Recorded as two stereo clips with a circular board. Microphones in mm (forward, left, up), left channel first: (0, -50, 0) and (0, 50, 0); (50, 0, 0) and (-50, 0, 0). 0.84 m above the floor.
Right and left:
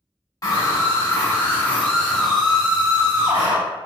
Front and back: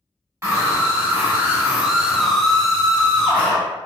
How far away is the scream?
About 1.5 m.